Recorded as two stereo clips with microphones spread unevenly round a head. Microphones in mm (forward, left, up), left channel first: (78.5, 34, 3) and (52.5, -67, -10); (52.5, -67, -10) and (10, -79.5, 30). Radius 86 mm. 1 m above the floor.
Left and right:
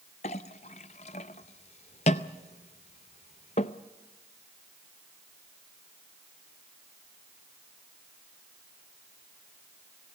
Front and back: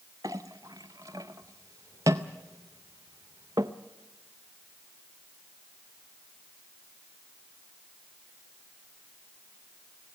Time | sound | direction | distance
0.2 | a clink | 125° left | 0.5 m